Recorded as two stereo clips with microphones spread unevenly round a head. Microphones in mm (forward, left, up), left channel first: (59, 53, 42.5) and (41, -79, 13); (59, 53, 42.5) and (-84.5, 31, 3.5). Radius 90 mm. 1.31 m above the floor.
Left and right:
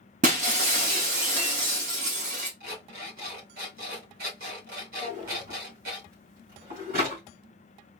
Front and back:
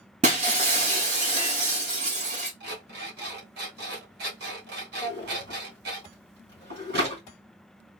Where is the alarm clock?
135° right, 1.9 m.